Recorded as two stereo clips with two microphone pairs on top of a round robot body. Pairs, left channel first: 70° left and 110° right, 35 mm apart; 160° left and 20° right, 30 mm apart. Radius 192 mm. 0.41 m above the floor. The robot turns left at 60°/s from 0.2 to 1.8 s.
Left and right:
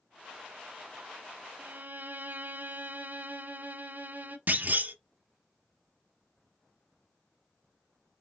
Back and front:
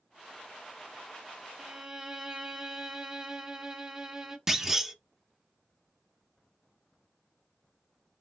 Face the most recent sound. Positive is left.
turn(degrees=-105)